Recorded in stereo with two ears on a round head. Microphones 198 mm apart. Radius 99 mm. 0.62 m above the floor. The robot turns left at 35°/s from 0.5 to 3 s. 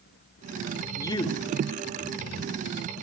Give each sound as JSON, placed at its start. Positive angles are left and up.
{"t": 1.0, "sound": "a man speaking", "side_deg": 15, "distance_m": 1.7}